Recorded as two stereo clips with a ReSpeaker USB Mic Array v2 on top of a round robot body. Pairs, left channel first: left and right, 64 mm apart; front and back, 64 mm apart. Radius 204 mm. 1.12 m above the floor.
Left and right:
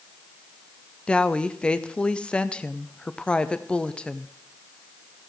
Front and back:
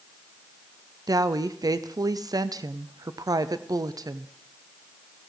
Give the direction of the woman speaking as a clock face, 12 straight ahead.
7 o'clock.